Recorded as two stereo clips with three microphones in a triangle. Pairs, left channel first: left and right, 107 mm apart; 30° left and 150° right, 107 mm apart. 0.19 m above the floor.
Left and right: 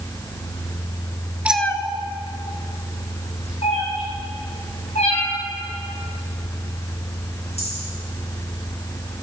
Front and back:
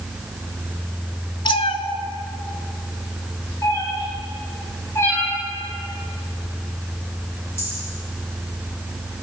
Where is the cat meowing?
15° right, 0.6 m; by 7.8 s 100° left, 8.5 m.